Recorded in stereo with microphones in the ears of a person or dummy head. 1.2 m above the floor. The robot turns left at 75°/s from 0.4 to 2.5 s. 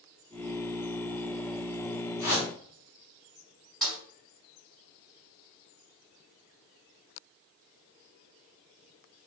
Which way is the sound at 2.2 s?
45° left (ahead or behind).